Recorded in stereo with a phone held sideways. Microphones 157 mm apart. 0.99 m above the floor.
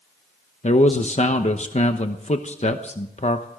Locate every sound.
0.6 s a man speaking: 45° left (ahead or behind), 1.0 m